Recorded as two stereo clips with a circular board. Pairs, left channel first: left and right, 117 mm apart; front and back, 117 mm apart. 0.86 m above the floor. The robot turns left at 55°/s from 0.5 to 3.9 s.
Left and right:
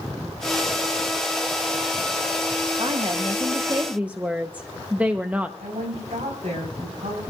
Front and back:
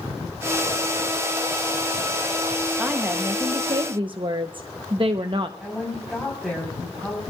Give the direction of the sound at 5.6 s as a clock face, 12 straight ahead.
3 o'clock.